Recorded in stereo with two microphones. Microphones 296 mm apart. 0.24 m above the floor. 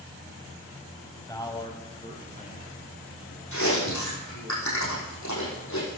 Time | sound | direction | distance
1.3 | a man speaking | 10° left (ahead or behind) | 1.1 m
3.5 | chewing | 75° left (ahead or behind) | 5 m